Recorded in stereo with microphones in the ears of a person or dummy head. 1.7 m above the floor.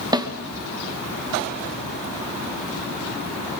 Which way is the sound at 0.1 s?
25° right (ahead or behind).